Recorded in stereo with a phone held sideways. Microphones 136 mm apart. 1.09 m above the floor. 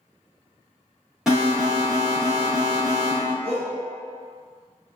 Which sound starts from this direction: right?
A shout, at 3.4 s.